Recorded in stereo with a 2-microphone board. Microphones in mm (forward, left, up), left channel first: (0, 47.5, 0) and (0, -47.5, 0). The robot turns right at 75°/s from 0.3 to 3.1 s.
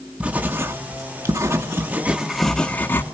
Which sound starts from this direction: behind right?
Writing, at 0.2 s.